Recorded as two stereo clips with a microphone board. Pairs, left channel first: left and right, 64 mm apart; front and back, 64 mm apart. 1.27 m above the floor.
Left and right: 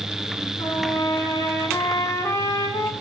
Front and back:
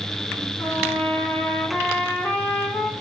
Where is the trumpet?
65° left, 4.5 m.